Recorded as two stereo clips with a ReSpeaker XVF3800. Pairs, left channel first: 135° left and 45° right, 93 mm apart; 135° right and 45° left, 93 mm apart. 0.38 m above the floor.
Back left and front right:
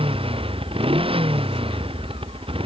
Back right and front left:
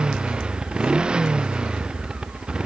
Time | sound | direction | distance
0.0 | a motorcycle | 35° right | ?